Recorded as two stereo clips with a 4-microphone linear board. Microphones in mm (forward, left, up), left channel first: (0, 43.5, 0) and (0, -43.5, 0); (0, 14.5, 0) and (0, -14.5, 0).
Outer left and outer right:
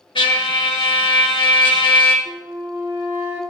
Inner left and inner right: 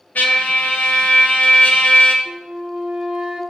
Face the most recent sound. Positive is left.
turn(degrees=-30)  # may be behind; listen again after turning